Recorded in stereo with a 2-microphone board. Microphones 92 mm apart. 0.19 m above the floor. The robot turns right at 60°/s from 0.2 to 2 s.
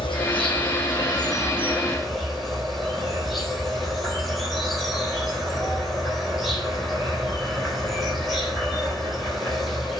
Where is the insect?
75° left, 3.5 m; by 10.0 s straight behind, 3.5 m.